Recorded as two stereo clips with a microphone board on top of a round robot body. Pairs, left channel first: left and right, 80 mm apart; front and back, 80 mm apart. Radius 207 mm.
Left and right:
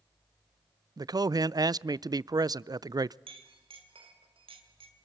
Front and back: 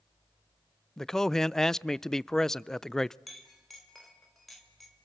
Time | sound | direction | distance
1.0 | a man speaking | 85° right | 0.5 m
3.3 | a clink | 90° right | 1.9 m